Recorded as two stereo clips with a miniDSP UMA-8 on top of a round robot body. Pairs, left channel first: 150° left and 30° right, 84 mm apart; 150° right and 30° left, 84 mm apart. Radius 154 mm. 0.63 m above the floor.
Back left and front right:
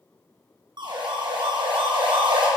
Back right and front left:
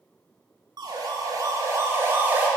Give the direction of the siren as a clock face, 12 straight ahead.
12 o'clock.